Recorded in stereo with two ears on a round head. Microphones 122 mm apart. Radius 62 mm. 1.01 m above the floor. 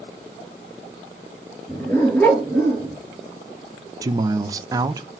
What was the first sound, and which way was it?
A dog barking, 10° left (ahead or behind).